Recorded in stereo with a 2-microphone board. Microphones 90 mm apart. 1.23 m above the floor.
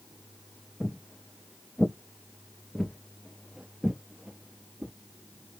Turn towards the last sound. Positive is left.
turn(degrees=-10)  # may be behind; listen again after turning